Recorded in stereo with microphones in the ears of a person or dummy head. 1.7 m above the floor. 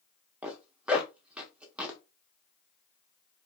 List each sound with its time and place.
0.4 s a zipper: 10° right (ahead or behind), 0.6 m